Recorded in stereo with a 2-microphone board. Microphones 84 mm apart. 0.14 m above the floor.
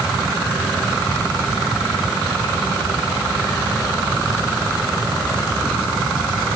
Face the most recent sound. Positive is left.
No sound to turn to.